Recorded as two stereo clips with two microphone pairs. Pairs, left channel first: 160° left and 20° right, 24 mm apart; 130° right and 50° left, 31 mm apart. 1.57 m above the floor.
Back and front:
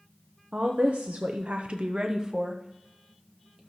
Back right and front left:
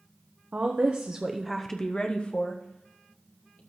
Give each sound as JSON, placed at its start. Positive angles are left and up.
{"t": 0.5, "sound": "a woman speaking", "azimuth_deg": 20, "distance_m": 1.1}